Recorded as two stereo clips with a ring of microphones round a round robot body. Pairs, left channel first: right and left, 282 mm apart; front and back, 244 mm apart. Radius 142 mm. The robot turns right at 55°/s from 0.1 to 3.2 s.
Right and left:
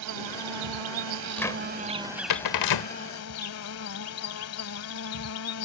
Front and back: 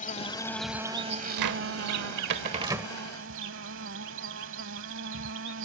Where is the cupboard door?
175° right; by 2.9 s 90° right.